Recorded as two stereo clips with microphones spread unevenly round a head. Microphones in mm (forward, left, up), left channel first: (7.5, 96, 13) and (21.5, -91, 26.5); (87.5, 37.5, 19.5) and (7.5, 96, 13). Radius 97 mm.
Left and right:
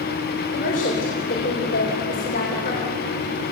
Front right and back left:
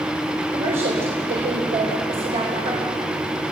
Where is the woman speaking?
145° left, 3.5 m.